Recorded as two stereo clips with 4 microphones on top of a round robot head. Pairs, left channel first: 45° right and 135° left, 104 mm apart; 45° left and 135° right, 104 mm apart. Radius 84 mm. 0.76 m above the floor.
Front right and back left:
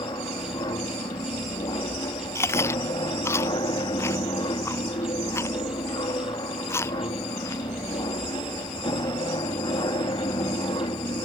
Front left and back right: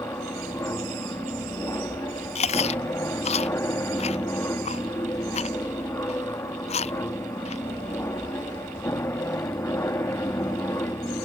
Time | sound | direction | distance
0.0 | an aircraft | 15° right | ?
2.4 | chewing | 20° left | ?